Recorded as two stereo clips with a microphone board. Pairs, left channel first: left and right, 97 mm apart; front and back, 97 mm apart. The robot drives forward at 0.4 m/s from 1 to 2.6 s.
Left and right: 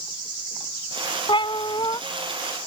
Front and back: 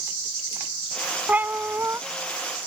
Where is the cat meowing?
110° left; by 2.0 s 120° left.